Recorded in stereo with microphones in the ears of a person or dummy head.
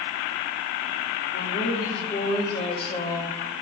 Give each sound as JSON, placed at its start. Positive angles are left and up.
{"t": 1.3, "sound": "a woman speaking", "side_deg": 45, "distance_m": 3.0}